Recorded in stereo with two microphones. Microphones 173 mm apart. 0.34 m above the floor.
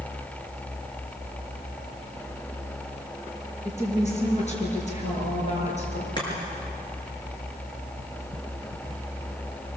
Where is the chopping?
25° left (ahead or behind), 6.5 m.